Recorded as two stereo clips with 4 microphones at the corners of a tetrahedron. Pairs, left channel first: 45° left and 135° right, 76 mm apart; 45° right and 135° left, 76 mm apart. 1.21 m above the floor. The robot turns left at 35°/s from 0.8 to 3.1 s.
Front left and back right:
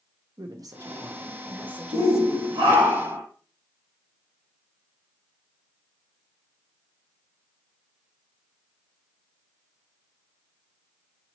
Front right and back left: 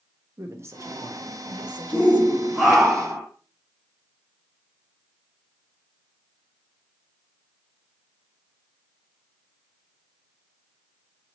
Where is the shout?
120° right, 1.6 m; by 3.2 s 160° right, 1.6 m.